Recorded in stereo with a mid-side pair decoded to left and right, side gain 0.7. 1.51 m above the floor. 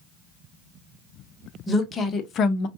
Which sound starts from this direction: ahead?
A woman speaking, at 1.7 s.